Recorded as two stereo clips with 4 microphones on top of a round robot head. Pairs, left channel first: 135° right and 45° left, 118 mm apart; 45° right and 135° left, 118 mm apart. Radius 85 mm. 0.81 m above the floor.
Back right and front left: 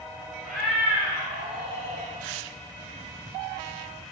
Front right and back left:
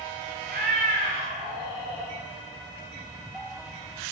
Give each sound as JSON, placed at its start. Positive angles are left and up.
{"t": 0.4, "sound": "a cat meowing", "azimuth_deg": 140, "distance_m": 1.5}